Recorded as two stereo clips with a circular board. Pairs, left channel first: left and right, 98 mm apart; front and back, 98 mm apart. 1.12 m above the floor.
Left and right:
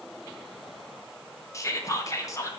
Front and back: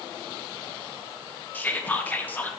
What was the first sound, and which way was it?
Whispering, 60° left.